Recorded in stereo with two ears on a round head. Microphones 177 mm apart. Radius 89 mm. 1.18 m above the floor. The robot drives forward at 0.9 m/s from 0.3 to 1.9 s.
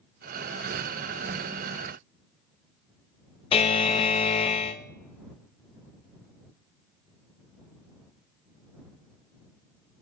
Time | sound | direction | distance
3.5 | a buzzer | 30° left (ahead or behind) | 0.5 m